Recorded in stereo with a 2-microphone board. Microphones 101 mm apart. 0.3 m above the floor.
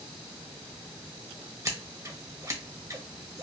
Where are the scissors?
35° right (ahead or behind), 1.1 m.